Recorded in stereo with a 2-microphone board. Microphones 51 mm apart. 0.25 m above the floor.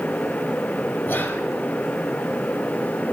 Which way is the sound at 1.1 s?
35° left (ahead or behind).